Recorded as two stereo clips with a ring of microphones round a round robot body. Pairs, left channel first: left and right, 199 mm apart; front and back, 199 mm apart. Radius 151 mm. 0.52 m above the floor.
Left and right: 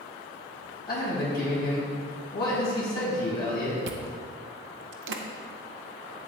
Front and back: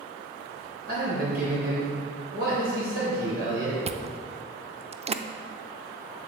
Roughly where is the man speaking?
Behind left.